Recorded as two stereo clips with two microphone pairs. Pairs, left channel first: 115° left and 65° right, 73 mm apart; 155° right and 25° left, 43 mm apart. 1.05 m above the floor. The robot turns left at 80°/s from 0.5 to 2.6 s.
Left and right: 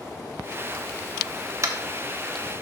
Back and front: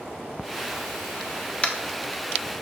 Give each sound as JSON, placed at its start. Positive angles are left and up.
{"t": 1.6, "sound": "tapping", "azimuth_deg": -95, "distance_m": 1.1}